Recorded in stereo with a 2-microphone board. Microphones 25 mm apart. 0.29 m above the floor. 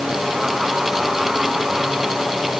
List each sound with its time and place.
Only background noise.